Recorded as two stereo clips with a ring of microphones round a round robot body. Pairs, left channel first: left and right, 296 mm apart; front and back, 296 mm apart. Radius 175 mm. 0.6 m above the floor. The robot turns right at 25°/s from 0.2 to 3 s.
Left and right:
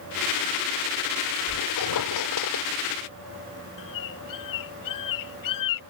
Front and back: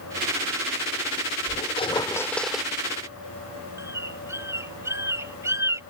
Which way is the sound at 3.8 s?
100° left.